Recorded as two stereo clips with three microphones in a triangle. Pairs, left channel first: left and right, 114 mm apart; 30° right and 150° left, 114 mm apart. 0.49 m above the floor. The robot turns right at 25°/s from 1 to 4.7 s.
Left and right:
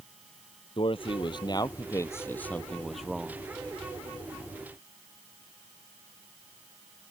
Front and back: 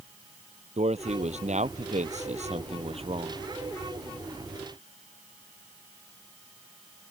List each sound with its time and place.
0.8 s a man speaking: 130° left; by 3.4 s 170° right